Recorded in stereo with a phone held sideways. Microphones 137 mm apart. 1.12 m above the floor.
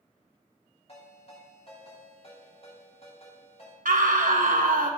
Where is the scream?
80° right, 1.2 m.